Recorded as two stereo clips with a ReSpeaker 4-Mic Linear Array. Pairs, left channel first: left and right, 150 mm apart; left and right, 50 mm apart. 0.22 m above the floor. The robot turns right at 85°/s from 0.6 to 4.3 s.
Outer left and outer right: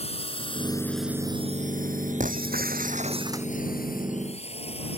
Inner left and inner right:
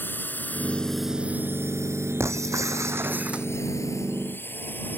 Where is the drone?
40° left (ahead or behind).